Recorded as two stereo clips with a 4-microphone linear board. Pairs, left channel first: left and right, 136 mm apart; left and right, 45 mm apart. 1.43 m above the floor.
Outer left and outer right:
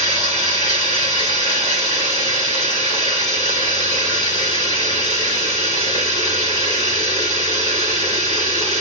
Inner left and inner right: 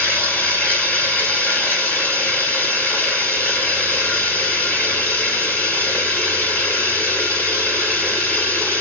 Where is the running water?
35° left (ahead or behind), 2.5 m.